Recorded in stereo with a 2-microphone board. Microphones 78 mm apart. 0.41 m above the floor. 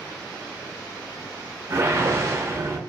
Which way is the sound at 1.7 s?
35° right (ahead or behind).